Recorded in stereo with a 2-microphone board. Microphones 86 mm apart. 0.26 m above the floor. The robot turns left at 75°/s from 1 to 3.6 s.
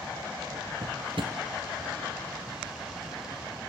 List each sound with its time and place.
0.8 s a drawer: 85° right, 1.8 m; by 1.4 s 65° right (ahead or behind), 1.8 m